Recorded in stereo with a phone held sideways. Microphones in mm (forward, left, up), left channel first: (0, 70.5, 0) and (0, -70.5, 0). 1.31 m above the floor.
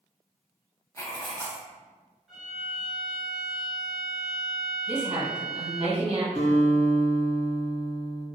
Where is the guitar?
60° left (ahead or behind), 1.6 m.